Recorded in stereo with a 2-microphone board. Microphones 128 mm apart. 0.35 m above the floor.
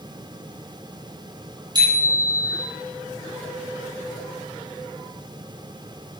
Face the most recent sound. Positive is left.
turn(degrees=-35)  # may be behind; listen again after turning